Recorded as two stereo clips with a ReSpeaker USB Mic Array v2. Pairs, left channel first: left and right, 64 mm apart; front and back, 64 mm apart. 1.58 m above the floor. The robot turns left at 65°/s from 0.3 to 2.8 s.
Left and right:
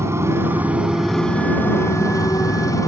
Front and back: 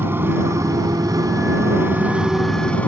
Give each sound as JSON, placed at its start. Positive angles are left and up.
{"t": 0.0, "sound": "a motorcycle", "azimuth_deg": -130}